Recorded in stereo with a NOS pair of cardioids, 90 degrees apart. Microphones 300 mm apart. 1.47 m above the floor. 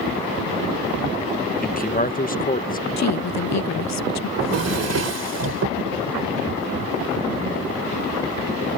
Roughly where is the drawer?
Ahead right.